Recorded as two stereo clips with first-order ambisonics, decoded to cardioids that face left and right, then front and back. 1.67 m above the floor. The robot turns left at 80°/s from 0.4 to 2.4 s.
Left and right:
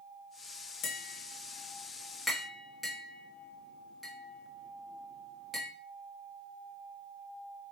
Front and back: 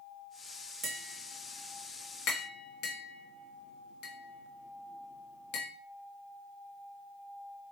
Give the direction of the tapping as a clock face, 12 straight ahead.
8 o'clock.